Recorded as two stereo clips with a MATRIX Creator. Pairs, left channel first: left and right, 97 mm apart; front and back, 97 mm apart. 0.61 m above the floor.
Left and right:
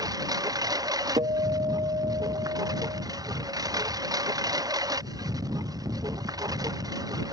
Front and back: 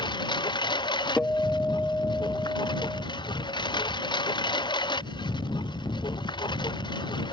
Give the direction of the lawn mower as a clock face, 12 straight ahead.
1 o'clock.